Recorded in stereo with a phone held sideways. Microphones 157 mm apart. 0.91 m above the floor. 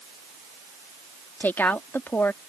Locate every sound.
1.4 s a woman speaking: 15° left (ahead or behind)